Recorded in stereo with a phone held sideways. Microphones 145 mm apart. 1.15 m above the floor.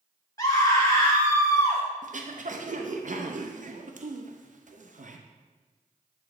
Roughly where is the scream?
Left.